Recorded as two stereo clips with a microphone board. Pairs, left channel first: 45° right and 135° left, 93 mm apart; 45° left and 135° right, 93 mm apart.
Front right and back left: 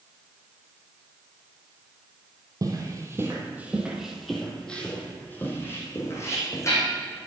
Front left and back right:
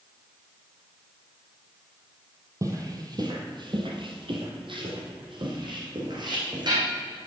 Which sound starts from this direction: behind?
Footsteps, at 2.6 s.